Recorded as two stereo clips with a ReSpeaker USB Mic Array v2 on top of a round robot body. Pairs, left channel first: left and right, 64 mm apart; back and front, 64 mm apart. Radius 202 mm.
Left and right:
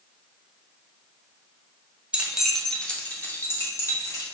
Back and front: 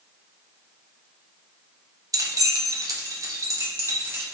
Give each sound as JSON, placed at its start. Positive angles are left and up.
{"t": 2.1, "sound": "keys jangling", "azimuth_deg": -15, "distance_m": 0.8}